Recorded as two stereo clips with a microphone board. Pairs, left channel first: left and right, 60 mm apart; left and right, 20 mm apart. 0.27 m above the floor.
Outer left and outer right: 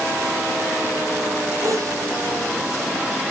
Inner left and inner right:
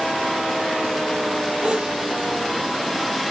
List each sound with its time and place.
1.6 s a sneeze: 70° right (ahead or behind), 9 m